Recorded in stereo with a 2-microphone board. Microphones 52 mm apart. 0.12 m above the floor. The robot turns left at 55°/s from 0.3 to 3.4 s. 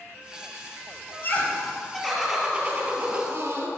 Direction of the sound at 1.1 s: 55° left.